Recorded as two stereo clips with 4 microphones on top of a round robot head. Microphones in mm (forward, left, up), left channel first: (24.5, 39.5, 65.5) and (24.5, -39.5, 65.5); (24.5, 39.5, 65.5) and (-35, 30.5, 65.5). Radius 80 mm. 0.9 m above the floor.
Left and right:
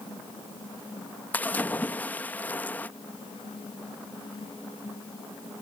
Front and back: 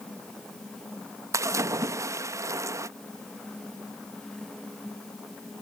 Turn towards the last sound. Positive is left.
turn(degrees=160)